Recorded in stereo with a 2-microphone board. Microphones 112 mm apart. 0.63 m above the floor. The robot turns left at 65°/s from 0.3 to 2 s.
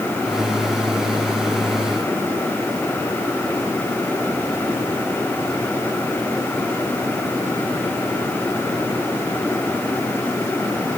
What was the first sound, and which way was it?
Only background noise.